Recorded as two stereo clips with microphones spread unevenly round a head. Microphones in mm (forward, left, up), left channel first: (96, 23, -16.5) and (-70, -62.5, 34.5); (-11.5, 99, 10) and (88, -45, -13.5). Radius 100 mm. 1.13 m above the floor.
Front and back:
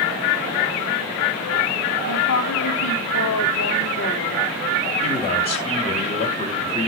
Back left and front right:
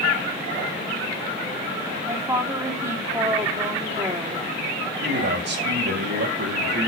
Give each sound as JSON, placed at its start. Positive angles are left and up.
{"t": 2.1, "sound": "a woman speaking", "azimuth_deg": 15, "distance_m": 3.0}
{"t": 5.0, "sound": "a man speaking", "azimuth_deg": -30, "distance_m": 5.0}